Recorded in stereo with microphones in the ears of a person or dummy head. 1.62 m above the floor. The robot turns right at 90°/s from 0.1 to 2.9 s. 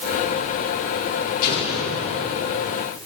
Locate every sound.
1.4 s an explosion: 45° left, 3 m; by 2.3 s 120° left, 3 m